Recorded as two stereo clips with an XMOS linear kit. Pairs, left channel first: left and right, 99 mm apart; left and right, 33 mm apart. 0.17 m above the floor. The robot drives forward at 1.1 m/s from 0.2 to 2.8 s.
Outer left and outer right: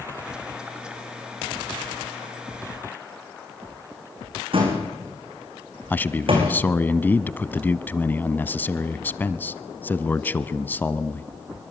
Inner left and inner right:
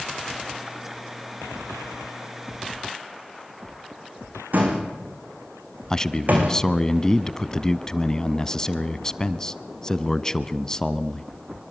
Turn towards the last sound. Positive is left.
turn(degrees=20)  # may be behind; listen again after turning